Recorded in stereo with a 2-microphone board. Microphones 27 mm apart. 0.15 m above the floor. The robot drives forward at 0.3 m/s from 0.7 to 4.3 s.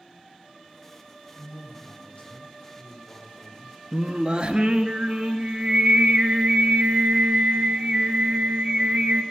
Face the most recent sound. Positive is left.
turn(degrees=-35)  # may be behind; listen again after turning